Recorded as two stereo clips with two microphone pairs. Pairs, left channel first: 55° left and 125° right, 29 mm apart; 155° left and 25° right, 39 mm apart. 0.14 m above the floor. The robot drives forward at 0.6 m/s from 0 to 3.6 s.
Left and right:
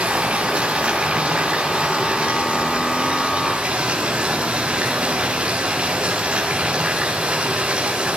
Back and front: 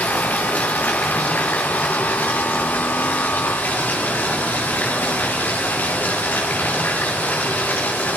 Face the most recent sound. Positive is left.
turn(degrees=-170)